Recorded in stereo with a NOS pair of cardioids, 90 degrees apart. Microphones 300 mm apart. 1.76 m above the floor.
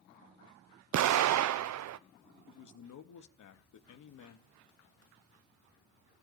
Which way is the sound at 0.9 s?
60° right.